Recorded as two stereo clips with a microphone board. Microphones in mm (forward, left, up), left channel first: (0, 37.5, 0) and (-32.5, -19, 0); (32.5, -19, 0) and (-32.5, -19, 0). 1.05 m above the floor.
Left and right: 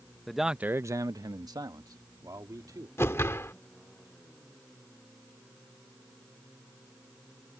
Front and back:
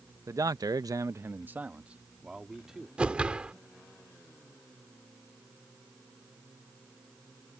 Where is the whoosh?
110° left.